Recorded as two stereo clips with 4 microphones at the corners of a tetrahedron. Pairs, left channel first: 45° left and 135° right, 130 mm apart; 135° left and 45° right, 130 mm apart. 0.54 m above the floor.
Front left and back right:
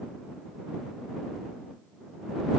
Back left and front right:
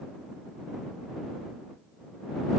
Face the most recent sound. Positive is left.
No sound to turn to.